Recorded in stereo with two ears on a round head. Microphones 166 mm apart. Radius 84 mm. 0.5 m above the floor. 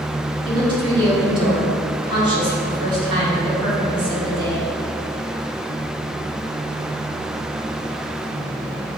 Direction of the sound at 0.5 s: 30° right (ahead or behind).